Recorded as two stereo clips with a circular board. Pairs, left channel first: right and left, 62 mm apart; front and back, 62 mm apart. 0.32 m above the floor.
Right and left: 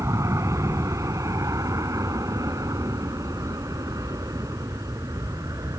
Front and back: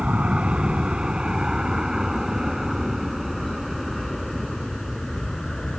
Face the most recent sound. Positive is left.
turn(degrees=80)